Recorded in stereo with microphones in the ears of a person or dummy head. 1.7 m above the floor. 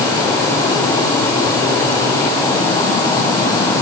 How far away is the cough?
No cough in this recording.